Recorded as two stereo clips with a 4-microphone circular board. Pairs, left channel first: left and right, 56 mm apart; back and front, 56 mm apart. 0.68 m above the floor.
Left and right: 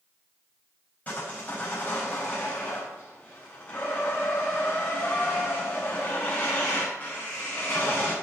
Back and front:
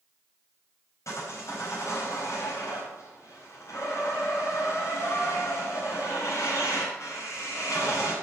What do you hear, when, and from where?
1.1 s sawing: 150° left, 4.5 m